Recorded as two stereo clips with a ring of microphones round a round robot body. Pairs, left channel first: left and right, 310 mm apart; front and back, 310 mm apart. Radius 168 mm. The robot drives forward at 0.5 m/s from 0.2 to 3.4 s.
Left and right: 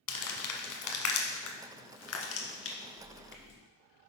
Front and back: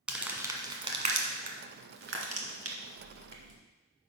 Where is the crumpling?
95° left, 1.3 m; by 3.6 s 145° left, 2 m.